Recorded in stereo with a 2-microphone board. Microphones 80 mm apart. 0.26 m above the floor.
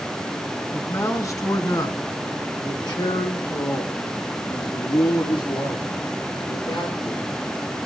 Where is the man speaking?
35° left (ahead or behind), 2.5 m; by 7.8 s 70° left (ahead or behind), 6 m.